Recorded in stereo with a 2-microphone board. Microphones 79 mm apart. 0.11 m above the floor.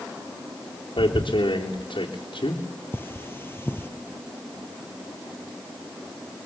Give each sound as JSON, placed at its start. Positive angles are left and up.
{"t": 1.0, "sound": "tearing paper", "side_deg": 85, "distance_m": 4.0}
{"t": 2.9, "sound": "cutlery clinking", "side_deg": 25, "distance_m": 1.8}